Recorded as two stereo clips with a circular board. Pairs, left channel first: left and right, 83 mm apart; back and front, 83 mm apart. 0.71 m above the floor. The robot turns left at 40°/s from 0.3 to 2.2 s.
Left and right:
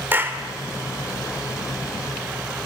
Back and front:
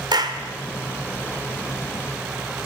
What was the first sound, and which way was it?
A clap, 25° right.